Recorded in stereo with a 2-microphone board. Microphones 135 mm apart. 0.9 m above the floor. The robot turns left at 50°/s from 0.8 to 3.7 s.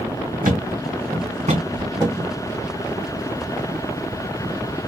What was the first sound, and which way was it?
A thud, 85° right.